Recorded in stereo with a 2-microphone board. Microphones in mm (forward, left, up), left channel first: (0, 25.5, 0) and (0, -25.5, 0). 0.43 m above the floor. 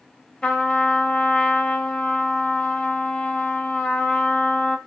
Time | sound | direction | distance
0.4 | a trumpet | 20° left (ahead or behind) | 1.9 m